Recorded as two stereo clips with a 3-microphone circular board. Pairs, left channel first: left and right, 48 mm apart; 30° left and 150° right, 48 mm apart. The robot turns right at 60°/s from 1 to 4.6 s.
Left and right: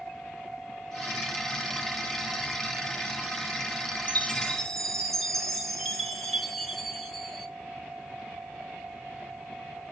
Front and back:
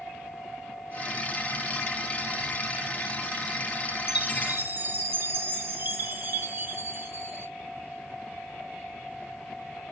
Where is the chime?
140° left, 2 m; by 7.5 s 170° left, 2 m.